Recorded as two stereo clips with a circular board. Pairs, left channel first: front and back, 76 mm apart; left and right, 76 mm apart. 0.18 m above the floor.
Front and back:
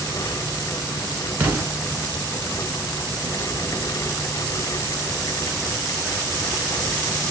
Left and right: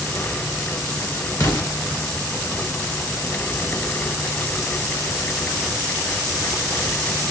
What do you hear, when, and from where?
1.4 s an explosion: 115° left, 1.5 m